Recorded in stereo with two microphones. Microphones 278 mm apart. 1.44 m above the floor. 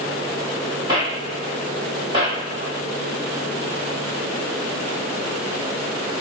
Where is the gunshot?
20° right (ahead or behind), 1.7 m.